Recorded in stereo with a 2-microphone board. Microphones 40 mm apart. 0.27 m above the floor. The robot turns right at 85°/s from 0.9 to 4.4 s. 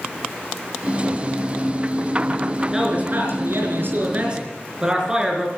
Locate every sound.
2.7 s a man speaking: 160° right, 4.5 m; by 5.5 s 15° right, 4.5 m